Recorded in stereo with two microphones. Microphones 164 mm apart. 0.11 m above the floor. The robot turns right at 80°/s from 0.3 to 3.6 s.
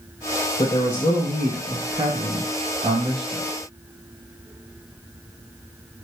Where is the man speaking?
35° left (ahead or behind), 1.4 m; by 3.5 s 10° right (ahead or behind), 1.4 m.